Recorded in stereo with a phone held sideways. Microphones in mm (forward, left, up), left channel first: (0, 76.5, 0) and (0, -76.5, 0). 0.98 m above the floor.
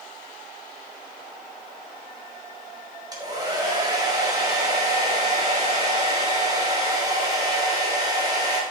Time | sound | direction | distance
3.1 | a hair dryer | 25° right (ahead or behind) | 3 m